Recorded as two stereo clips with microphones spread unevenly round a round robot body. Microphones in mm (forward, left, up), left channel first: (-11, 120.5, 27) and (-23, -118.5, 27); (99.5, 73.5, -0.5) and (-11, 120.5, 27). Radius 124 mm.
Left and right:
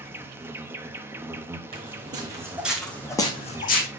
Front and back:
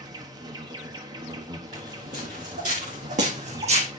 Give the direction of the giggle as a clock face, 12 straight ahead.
I don't hear a giggle.